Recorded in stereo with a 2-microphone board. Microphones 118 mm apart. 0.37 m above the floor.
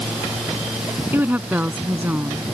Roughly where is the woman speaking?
Centre.